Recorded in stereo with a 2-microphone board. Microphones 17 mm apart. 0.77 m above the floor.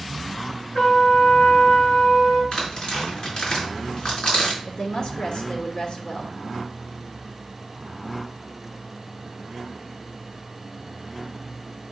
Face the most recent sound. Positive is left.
turn(degrees=45)  # may be behind; listen again after turning